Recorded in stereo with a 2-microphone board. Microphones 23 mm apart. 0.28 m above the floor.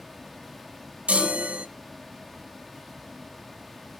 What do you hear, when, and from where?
1.1 s a chime: 70° right (ahead or behind), 0.7 m